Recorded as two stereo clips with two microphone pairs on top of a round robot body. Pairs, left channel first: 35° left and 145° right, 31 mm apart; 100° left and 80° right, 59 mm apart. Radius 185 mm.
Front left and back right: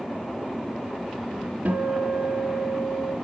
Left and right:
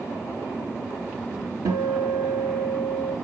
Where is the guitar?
110° right, 5 m.